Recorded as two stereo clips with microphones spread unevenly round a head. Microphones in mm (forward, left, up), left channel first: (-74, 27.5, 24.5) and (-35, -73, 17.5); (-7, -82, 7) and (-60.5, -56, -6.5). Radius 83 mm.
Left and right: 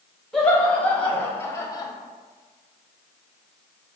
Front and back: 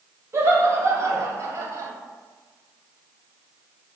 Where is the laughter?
165° right, 1.5 m; by 1.9 s 165° left, 0.8 m.